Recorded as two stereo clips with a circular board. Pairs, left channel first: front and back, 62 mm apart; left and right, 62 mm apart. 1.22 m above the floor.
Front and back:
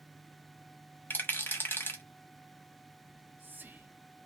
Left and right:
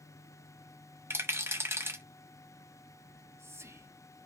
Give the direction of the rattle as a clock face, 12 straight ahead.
2 o'clock.